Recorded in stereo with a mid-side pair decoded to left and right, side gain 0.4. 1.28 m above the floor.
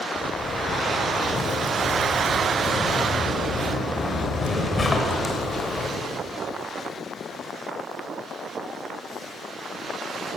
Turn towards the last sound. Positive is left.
turn(degrees=35)